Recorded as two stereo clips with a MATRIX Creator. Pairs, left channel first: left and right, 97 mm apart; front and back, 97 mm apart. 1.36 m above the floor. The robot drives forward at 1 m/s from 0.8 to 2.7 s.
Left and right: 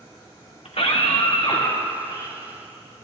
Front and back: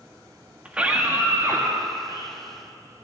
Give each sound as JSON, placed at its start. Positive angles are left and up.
{"t": 0.7, "sound": "a scream", "azimuth_deg": 100, "distance_m": 2.0}